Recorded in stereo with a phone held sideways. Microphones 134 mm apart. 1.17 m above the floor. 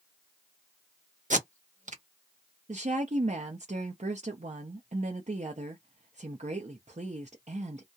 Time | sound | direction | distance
1.3 | tape being pulled | 70° right (ahead or behind) | 0.7 m
2.7 | a woman speaking | 60° right (ahead or behind) | 0.5 m